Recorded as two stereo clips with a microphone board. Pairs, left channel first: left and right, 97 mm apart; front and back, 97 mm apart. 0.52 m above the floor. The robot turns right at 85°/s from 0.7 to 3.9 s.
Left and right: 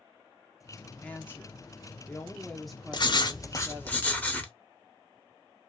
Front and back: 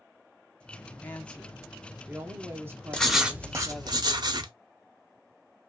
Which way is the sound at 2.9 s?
75° left.